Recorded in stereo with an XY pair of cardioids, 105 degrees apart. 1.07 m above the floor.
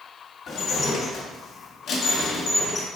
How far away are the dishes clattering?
About 1.6 m.